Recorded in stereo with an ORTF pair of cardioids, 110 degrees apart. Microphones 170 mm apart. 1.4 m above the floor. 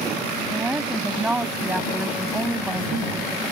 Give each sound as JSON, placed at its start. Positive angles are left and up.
{"t": 0.5, "sound": "a woman speaking", "azimuth_deg": -5}